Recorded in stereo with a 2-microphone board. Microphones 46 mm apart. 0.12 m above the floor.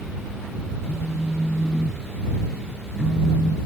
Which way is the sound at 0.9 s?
20° left (ahead or behind).